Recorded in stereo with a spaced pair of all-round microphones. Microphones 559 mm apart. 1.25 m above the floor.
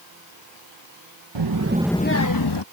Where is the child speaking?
50° right (ahead or behind); by 2.6 s 50° left (ahead or behind).